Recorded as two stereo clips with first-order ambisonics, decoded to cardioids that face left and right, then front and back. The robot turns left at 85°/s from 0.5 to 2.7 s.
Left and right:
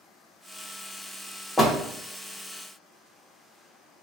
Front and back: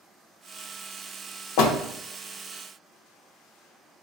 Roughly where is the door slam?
Ahead.